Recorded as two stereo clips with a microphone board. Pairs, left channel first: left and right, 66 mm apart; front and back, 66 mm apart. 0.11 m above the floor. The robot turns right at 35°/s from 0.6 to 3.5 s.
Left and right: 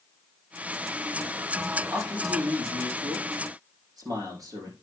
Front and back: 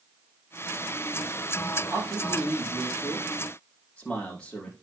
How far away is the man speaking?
About 5.5 m.